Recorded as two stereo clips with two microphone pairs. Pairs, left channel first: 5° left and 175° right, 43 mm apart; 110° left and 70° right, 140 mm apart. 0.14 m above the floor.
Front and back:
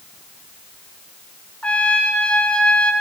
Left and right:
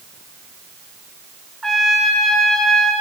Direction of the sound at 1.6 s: 25° left.